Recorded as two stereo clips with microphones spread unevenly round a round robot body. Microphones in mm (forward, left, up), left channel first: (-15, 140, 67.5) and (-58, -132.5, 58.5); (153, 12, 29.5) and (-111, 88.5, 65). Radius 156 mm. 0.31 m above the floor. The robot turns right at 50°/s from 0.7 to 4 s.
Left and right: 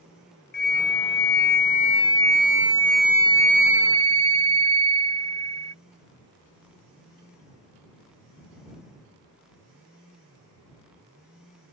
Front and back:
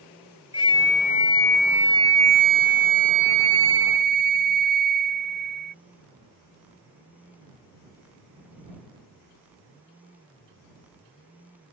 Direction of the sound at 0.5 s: 55° left.